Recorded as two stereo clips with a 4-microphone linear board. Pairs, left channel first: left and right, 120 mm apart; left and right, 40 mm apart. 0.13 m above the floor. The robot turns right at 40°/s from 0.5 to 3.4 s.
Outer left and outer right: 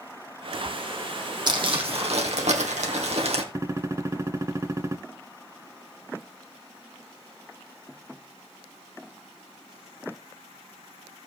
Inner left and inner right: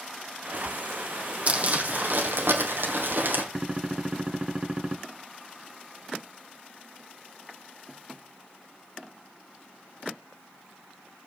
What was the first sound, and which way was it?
Crumpling, 140° right.